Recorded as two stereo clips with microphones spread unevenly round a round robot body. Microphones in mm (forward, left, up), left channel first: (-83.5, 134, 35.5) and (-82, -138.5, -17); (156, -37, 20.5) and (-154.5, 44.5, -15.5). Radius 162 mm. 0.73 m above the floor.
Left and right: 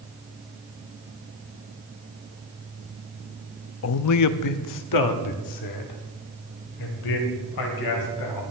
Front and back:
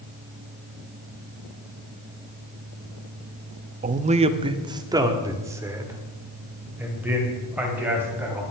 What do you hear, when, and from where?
3.8 s a man speaking: 115° left, 0.6 m; by 8.4 s 80° left, 3.5 m